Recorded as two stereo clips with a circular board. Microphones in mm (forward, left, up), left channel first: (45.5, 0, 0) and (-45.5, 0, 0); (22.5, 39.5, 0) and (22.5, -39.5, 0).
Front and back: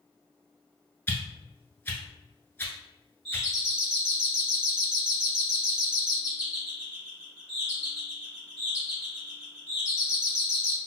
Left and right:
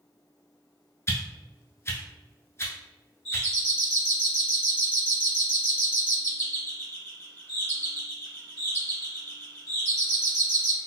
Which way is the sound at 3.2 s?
115° left.